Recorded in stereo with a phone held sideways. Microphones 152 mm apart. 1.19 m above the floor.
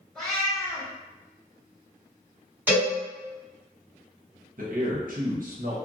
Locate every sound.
0.1 s a cat meowing: 5° left (ahead or behind), 2.0 m
2.7 s a cowbell: 10° right (ahead or behind), 2.0 m
4.6 s a man speaking: 70° right (ahead or behind), 0.9 m